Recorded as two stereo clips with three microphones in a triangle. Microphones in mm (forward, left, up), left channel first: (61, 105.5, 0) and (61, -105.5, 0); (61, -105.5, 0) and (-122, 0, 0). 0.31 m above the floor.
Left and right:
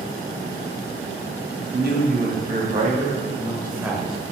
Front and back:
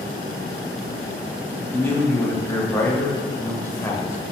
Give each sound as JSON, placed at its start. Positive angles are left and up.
{"t": 1.7, "sound": "a man speaking", "azimuth_deg": -110, "distance_m": 2.5}